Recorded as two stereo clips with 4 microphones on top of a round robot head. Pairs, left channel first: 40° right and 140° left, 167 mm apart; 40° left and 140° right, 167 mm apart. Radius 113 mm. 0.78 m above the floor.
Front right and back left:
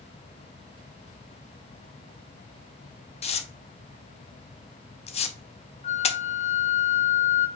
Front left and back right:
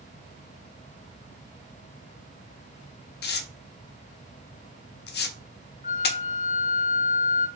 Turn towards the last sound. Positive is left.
turn(degrees=5)